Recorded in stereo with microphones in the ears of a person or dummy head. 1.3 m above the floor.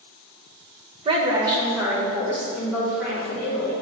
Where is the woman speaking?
30° right (ahead or behind), 1.0 m; by 3.7 s centre (ahead or behind), 3.5 m.